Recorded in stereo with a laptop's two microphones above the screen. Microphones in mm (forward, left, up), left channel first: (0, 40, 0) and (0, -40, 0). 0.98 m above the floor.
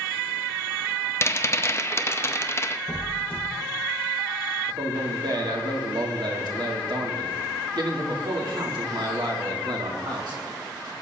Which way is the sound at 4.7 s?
65° right (ahead or behind).